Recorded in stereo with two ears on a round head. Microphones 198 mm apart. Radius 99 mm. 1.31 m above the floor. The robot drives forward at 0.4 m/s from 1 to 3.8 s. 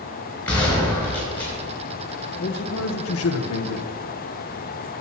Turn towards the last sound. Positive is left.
turn(degrees=80)